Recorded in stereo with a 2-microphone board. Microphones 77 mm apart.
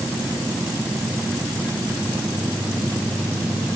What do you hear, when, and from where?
Only background noise.